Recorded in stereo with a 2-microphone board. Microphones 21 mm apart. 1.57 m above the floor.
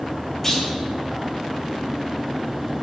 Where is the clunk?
10° left (ahead or behind), 1.5 m.